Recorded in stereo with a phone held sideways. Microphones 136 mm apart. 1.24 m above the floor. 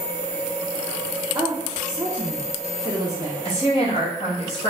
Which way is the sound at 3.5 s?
50° left (ahead or behind).